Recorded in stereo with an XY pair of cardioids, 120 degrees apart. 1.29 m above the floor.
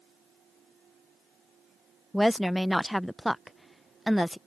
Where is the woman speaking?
Straight ahead.